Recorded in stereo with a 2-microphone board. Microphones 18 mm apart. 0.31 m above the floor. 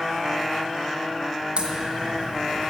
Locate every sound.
1.6 s a crack: 70° right (ahead or behind), 1.9 m